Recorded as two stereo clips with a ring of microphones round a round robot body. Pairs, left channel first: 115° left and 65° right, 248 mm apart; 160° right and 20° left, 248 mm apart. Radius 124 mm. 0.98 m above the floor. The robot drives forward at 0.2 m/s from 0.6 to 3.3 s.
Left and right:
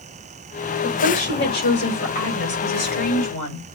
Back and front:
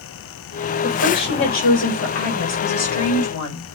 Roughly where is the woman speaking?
Behind.